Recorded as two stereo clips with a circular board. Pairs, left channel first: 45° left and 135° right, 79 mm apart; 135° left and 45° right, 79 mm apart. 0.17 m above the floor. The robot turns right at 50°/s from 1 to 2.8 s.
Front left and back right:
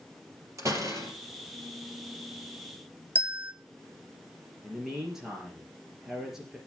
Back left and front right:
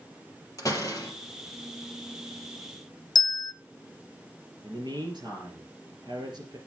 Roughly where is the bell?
Behind.